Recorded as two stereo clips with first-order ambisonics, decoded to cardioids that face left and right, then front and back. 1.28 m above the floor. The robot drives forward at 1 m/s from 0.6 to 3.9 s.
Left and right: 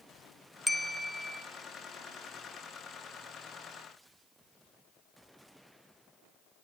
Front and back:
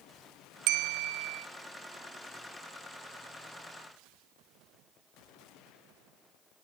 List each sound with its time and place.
0.7 s a bell: 175° left, 0.8 m